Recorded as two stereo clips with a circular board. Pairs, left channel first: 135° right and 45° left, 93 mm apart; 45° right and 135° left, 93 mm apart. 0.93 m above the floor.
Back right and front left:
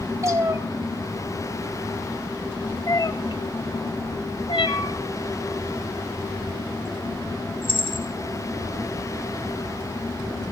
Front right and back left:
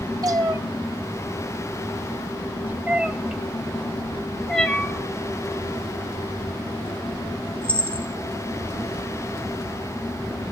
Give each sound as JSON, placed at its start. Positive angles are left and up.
{"t": 0.2, "sound": "a cat meowing", "azimuth_deg": 95, "distance_m": 1.3}